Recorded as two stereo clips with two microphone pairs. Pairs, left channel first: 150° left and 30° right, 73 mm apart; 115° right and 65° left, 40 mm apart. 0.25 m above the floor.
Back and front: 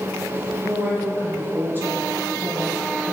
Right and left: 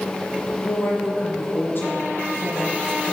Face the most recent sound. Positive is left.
turn(degrees=-90)